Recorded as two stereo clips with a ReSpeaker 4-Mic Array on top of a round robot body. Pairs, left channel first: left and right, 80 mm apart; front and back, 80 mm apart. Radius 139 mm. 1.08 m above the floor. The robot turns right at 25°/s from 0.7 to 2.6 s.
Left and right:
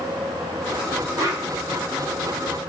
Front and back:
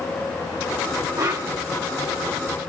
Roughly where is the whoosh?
Behind right.